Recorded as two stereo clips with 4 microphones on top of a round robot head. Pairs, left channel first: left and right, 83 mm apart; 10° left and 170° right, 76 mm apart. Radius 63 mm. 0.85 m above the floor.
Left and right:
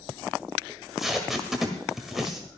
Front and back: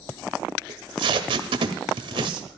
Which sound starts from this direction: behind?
Tape being pulled, at 0.7 s.